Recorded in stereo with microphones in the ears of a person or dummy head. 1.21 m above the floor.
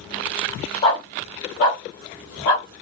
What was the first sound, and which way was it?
A dog barking, 50° left (ahead or behind).